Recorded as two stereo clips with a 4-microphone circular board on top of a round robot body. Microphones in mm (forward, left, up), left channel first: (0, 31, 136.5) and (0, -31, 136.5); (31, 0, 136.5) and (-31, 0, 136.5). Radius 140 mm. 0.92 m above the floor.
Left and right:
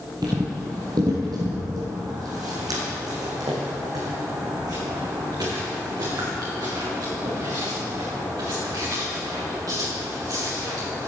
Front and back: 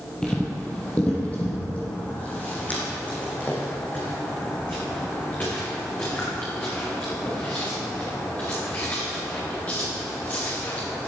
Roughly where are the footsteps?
Right.